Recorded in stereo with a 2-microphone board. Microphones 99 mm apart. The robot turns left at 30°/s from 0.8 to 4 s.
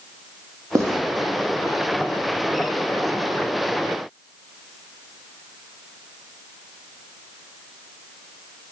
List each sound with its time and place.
0.8 s writing: 35° right (ahead or behind), 0.7 m